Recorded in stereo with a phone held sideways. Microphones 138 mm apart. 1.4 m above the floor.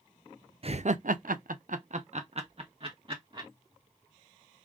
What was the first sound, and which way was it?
Laughter, 45° right (ahead or behind).